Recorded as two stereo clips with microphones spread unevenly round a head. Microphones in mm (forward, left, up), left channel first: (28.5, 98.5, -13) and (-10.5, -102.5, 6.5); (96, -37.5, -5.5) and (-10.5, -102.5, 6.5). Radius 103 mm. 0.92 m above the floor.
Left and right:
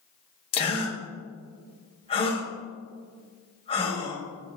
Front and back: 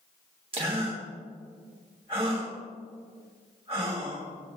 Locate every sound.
0.5 s a gasp: 145° left, 2.5 m